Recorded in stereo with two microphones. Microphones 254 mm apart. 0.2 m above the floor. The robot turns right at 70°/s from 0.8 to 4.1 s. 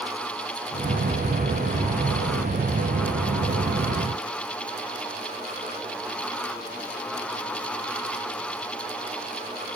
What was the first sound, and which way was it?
Only background noise.